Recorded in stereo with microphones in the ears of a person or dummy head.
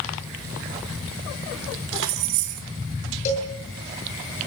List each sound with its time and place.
1.9 s keys jangling: 70° right (ahead or behind), 2.5 m
3.2 s a cowbell: 40° left (ahead or behind), 8 m